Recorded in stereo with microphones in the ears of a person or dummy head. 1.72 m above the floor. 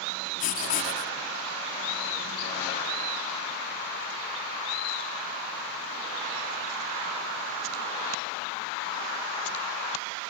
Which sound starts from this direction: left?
Writing, at 0.4 s.